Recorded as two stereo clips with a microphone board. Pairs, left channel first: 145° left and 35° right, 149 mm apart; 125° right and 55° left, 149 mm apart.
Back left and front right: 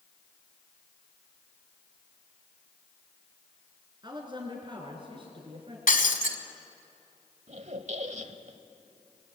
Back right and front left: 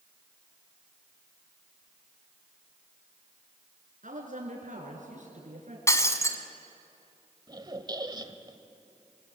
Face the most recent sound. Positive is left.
turn(degrees=-5)